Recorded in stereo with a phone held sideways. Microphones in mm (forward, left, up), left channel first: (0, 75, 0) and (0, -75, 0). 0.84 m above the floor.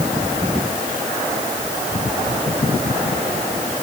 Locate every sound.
Only background noise.